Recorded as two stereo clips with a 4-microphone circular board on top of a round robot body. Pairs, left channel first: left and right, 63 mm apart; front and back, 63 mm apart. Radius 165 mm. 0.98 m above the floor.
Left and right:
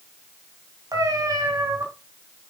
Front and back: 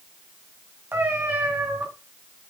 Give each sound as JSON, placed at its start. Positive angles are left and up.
{"t": 0.9, "sound": "a cat meowing", "azimuth_deg": -120, "distance_m": 1.8}